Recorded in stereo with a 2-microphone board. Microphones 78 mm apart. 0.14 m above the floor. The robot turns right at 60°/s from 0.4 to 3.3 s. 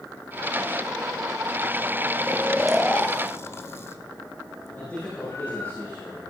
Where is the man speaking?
25° left (ahead or behind), 5.5 m.